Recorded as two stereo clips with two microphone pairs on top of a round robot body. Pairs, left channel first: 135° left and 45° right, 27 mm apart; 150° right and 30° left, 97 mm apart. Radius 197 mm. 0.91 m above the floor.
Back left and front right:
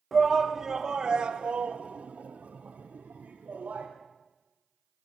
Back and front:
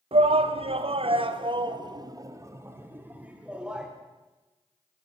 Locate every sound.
0.1 s a shout: 40° left, 3 m; by 3.9 s 55° right, 4 m